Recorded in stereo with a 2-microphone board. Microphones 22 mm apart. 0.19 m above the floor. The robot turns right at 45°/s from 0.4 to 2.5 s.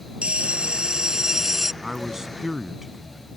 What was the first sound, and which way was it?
A bell, 70° right.